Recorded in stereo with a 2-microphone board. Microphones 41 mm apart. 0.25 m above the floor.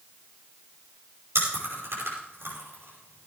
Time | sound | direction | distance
1.4 | chewing | 70° right (ahead or behind) | 5.5 m